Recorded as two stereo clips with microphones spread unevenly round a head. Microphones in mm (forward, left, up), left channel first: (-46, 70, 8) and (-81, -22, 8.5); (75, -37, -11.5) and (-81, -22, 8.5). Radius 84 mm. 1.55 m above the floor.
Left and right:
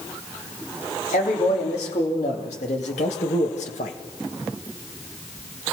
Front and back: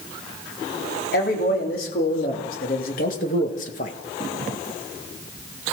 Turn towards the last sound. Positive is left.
turn(degrees=45)